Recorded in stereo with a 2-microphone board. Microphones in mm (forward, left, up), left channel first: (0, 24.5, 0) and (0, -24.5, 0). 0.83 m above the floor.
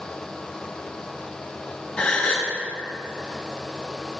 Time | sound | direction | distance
2.0 | a gasp | 25° left (ahead or behind) | 1.1 m